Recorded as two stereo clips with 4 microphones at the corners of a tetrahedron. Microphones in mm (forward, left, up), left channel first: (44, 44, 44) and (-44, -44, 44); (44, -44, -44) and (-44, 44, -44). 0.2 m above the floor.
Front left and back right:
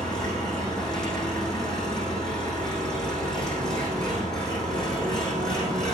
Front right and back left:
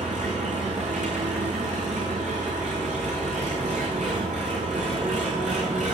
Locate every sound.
0.0 s an engine running: 130° left, 4.5 m